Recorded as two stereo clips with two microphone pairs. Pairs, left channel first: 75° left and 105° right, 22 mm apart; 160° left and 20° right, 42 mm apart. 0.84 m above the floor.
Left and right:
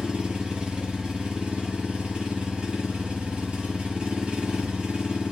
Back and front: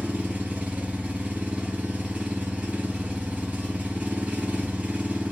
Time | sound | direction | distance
0.0 | an engine running | 85° right | 2.5 m